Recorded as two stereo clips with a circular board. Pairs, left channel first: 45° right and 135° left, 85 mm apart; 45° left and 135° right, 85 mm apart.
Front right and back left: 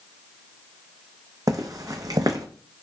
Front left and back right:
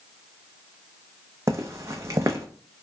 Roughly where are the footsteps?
Behind.